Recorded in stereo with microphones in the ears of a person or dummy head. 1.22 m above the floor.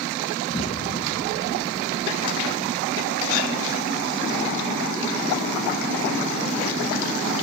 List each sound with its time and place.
0.5 s an explosion: 25° left (ahead or behind), 0.6 m